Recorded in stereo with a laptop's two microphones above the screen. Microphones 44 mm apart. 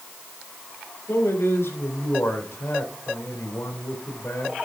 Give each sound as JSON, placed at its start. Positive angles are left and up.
{"t": 1.1, "sound": "a man speaking", "side_deg": 70, "distance_m": 3.0}